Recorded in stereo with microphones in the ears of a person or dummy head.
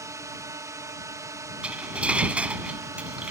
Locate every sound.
0.0 s a drone: 10° right (ahead or behind)
1.6 s cutlery clinking: 10° right (ahead or behind)